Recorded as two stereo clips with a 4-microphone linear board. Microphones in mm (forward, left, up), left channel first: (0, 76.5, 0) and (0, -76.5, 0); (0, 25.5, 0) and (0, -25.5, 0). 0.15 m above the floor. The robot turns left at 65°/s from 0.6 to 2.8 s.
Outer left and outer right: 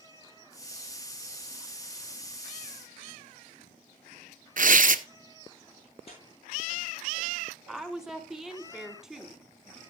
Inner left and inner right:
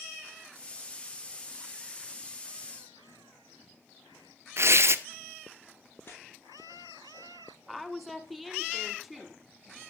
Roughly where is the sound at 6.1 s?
Left.